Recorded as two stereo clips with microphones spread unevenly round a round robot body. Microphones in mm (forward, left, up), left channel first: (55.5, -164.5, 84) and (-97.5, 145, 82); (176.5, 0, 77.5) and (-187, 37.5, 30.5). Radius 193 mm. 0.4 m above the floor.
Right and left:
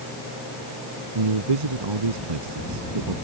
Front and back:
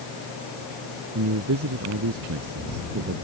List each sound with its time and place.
1.1 s a man speaking: 120° left